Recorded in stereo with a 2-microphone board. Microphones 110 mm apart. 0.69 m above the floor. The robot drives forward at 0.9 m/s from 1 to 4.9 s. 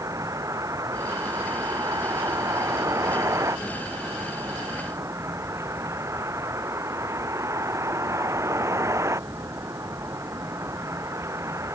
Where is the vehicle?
30° right (ahead or behind); by 11.8 s 25° right (ahead or behind).